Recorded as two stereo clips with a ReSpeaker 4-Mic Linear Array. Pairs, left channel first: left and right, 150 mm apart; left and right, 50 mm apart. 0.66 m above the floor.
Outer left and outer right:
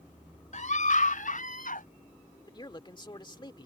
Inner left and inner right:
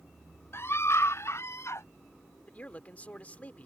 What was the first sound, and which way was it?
A scream, 65° left (ahead or behind).